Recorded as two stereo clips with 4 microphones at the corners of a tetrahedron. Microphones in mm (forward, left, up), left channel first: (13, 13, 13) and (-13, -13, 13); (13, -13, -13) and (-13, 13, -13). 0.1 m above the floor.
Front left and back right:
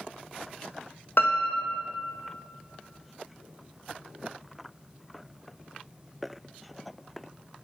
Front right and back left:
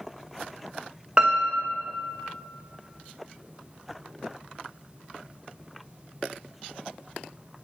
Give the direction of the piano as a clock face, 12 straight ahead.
10 o'clock.